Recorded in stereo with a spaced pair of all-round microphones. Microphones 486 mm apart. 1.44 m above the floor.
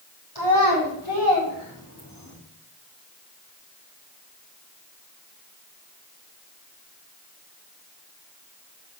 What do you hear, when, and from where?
0.3 s a child speaking: 55° left (ahead or behind), 5 m